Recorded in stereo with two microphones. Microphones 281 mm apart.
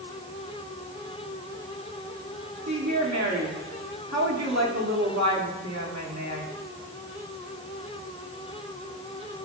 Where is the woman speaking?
70° right (ahead or behind), 2.0 m.